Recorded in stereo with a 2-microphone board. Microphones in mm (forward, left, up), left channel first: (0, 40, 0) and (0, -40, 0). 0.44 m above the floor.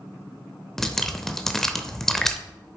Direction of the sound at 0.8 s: 5° left (ahead or behind).